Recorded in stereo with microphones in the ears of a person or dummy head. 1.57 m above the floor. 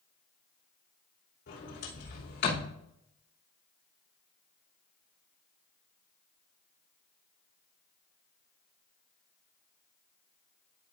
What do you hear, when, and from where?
1.5 s a sliding door: 55° left (ahead or behind), 3 m